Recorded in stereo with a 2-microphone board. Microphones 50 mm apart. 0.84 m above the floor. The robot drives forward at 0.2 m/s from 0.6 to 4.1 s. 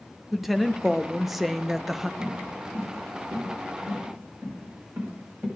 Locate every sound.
0.3 s a woman speaking: 5° right (ahead or behind), 0.7 m
2.2 s footsteps: 80° right, 4 m; by 5.5 s 50° right (ahead or behind), 6.5 m